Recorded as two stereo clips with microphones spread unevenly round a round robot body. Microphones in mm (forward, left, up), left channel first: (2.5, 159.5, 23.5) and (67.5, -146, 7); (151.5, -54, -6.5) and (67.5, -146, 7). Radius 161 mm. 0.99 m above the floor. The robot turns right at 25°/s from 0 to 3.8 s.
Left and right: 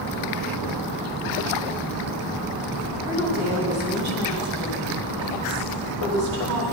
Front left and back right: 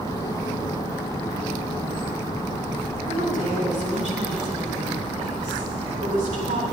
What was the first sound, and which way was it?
A woman speaking, 130° right.